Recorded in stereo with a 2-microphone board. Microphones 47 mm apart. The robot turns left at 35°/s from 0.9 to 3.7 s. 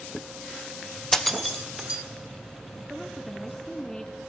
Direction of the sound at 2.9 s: 15° right (ahead or behind).